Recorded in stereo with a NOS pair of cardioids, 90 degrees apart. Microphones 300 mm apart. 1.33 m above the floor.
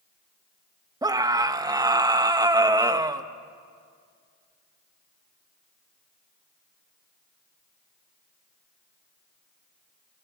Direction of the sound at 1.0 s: 10° right.